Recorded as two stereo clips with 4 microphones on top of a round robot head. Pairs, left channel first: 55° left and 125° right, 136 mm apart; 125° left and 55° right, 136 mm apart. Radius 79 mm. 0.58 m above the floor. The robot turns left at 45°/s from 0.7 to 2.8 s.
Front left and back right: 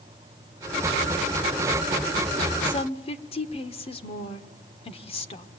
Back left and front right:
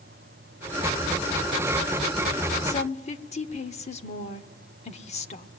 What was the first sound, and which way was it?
A woman speaking, 105° left.